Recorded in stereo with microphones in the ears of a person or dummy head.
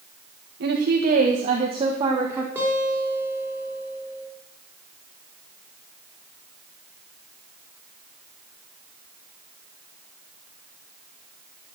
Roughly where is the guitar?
Centre.